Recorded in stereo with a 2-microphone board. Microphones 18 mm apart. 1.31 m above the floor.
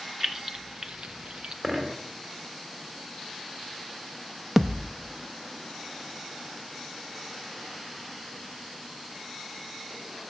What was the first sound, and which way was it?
Keys jangling, 15° right (ahead or behind).